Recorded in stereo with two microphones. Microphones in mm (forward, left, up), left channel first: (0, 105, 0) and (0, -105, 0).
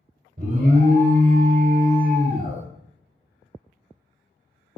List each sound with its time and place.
0.4 s an alarm: 40° right (ahead or behind), 1.0 m